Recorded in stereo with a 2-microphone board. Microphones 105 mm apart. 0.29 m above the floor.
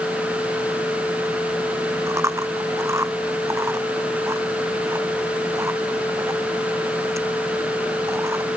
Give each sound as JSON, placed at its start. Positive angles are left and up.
{"t": 2.1, "sound": "chewing", "side_deg": -25}